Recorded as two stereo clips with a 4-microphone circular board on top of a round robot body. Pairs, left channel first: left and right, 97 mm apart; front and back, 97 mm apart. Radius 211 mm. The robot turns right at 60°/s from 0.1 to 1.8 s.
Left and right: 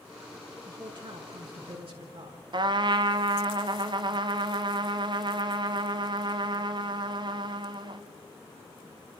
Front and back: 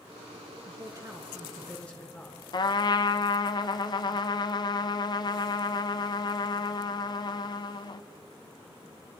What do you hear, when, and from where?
0.7 s a man speaking: 145° right, 7 m; by 2.4 s 80° right, 7 m
2.5 s a trumpet: 45° right, 0.6 m